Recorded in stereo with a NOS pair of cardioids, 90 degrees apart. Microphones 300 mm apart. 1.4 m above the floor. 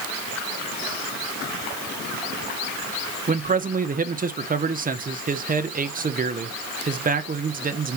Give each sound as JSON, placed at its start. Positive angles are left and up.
{"t": 3.3, "sound": "a man speaking", "azimuth_deg": -25, "distance_m": 1.0}